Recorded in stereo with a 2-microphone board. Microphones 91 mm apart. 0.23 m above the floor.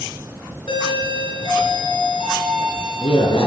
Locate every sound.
0.7 s a doorbell: 65° left (ahead or behind), 4 m